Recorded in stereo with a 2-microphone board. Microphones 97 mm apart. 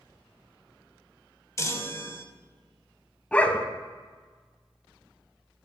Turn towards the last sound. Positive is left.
turn(degrees=15)  # may be behind; listen again after turning